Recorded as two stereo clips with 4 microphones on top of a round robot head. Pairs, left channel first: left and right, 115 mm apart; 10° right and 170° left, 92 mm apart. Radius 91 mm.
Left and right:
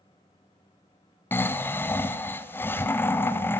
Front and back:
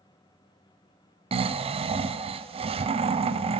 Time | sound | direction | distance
1.3 | snoring | 160° left | 0.8 m